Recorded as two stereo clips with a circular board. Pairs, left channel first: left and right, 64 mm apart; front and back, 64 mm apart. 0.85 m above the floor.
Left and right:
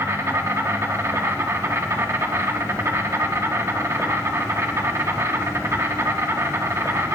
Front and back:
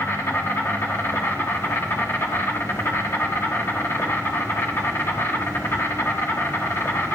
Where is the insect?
45° right, 1.5 m.